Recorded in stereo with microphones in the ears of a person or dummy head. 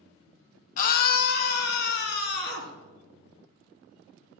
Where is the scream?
50° left (ahead or behind), 0.8 m; by 2.8 s 70° left (ahead or behind), 3.5 m.